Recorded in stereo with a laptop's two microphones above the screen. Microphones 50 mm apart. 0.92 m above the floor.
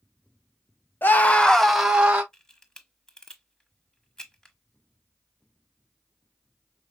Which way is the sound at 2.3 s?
15° left (ahead or behind).